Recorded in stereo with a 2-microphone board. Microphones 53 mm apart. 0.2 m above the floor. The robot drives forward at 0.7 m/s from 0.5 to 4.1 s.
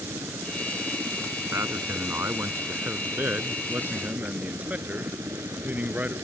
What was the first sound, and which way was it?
A helicopter, 60° right (ahead or behind).